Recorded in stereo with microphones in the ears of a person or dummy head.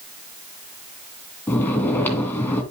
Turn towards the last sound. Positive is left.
turn(degrees=15)  # may be behind; listen again after turning